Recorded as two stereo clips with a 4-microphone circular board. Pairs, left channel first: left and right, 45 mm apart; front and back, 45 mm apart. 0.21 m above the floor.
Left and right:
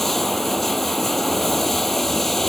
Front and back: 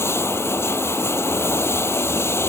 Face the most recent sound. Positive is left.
turn(degrees=5)